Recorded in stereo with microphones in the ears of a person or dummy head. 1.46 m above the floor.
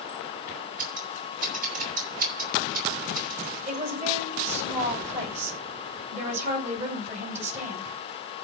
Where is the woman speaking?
35° right (ahead or behind), 9.5 m.